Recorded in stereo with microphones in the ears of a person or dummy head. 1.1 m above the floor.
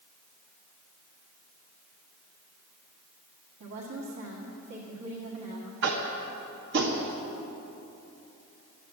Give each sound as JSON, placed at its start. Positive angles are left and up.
{"t": 3.6, "sound": "a woman speaking", "side_deg": -65, "distance_m": 1.7}
{"t": 5.8, "sound": "tapping", "side_deg": -65, "distance_m": 1.6}